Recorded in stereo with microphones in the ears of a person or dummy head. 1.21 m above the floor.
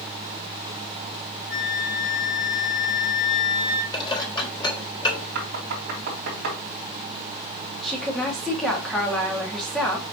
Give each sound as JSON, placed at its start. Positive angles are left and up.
{"t": 1.5, "sound": "a flute", "side_deg": 65, "distance_m": 3.5}
{"t": 3.9, "sound": "dishes clattering", "side_deg": 25, "distance_m": 3.0}
{"t": 5.3, "sound": "knocking", "side_deg": -55, "distance_m": 3.0}
{"t": 7.8, "sound": "a woman speaking", "side_deg": 0, "distance_m": 2.5}